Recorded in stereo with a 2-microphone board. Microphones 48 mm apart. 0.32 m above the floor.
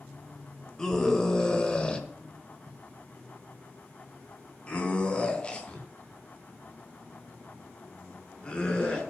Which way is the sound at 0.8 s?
15° left (ahead or behind).